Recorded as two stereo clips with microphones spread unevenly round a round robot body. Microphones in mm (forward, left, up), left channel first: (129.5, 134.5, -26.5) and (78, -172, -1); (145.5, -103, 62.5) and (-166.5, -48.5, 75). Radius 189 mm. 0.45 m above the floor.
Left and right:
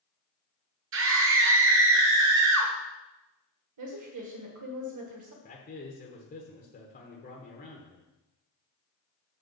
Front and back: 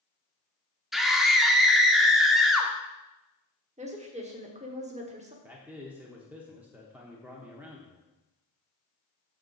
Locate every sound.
0.9 s a scream: 95° right, 0.8 m
3.8 s a woman speaking: 125° right, 1.3 m
5.4 s a man speaking: 85° left, 0.9 m